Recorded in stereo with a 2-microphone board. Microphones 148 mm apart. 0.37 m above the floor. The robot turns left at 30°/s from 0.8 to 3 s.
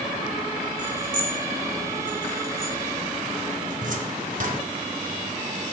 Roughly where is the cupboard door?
Right.